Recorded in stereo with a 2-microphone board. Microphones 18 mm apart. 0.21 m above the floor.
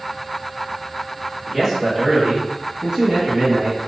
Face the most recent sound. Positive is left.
turn(degrees=-45)  # may be behind; listen again after turning